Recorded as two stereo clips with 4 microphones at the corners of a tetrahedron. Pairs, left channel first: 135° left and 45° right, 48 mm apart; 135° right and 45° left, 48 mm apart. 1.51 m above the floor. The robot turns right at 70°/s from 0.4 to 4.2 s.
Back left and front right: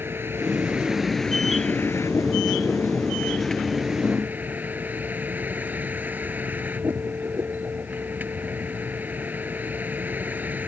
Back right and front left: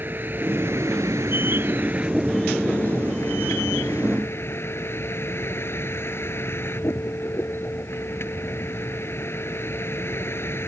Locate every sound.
0.0 s a vehicle: 5° right; by 10.7 s 100° right